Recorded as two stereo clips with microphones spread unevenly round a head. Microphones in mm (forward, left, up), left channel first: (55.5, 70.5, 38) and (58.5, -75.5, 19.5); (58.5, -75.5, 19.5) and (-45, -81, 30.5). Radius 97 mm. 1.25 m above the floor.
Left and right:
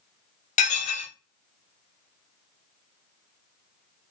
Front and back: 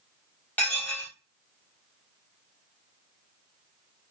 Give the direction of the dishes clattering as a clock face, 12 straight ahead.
9 o'clock.